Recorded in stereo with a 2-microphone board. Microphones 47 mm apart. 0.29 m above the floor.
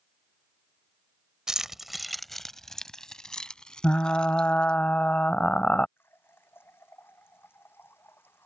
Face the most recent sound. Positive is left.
turn(degrees=50)  # may be behind; listen again after turning